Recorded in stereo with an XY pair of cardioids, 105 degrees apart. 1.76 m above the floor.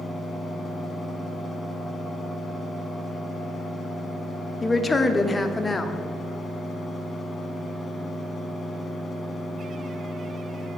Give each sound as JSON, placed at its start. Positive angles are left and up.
{"t": 0.0, "sound": "a fan", "azimuth_deg": 20, "distance_m": 1.3}
{"t": 4.6, "sound": "a woman speaking", "azimuth_deg": 20, "distance_m": 0.6}